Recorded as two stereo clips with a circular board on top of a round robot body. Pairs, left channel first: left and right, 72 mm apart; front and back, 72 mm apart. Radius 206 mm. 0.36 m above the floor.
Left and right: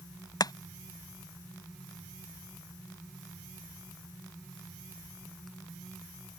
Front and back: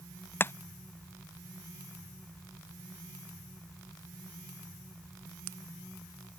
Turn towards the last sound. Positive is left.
turn(degrees=60)